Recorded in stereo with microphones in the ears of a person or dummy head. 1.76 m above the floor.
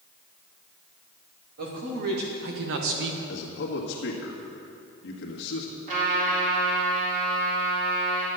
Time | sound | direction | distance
1.6 | a man speaking | 60° right (ahead or behind) | 2.5 m
3.3 | a man speaking | 70° left (ahead or behind) | 1.9 m
5.9 | a trumpet | 50° right (ahead or behind) | 4 m